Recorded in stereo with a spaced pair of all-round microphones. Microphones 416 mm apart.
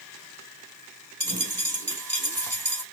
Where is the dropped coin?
45° right (ahead or behind), 2 m.